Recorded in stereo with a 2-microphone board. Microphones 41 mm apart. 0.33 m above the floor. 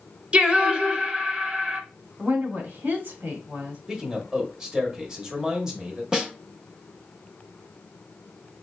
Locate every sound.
0.3 s singing: 30° right (ahead or behind), 0.7 m
2.2 s a woman speaking: 55° right (ahead or behind), 1.7 m
3.9 s a man speaking: 20° right (ahead or behind), 1.0 m
6.1 s a snare drum: 20° right (ahead or behind), 0.9 m